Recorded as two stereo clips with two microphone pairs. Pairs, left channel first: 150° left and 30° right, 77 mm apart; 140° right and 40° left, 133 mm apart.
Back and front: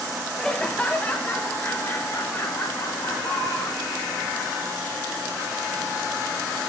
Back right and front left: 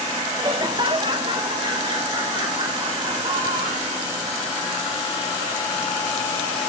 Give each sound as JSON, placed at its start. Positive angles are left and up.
{"t": 0.4, "sound": "laughter", "azimuth_deg": 70, "distance_m": 1.1}